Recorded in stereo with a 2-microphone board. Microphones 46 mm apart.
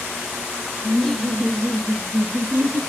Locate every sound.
0.8 s laughter: 10° left (ahead or behind), 1.2 m; by 2.8 s 50° right (ahead or behind), 1.7 m